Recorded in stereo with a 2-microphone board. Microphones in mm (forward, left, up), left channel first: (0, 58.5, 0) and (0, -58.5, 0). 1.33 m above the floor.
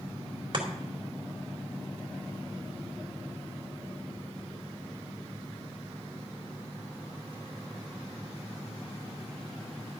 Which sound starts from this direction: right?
Chopping, at 0.5 s.